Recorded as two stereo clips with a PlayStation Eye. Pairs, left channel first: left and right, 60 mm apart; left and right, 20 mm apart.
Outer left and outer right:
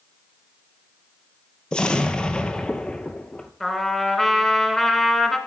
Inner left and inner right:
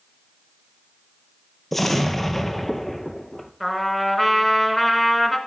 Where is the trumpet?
5° left (ahead or behind), 1.3 m.